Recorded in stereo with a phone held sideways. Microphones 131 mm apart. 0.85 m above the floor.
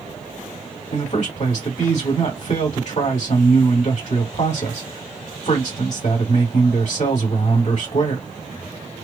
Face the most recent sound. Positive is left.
turn(degrees=55)  # may be behind; listen again after turning